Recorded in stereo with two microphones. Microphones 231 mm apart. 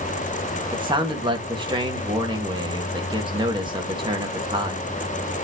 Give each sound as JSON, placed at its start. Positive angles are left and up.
{"t": 0.7, "sound": "a man speaking", "side_deg": -20, "distance_m": 1.8}